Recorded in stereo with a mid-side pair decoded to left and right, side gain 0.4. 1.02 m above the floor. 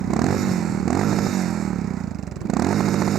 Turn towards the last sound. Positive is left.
turn(degrees=-70)